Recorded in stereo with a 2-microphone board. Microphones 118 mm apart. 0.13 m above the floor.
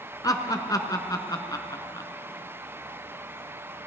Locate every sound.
0.2 s laughter: 30° left (ahead or behind), 1.4 m